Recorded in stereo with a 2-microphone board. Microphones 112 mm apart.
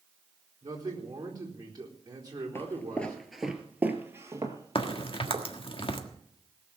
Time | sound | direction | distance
0.6 | a man speaking | 35° right (ahead or behind) | 4 m
2.5 | footsteps | 20° left (ahead or behind) | 1.6 m
4.8 | a crack | 55° left (ahead or behind) | 1.5 m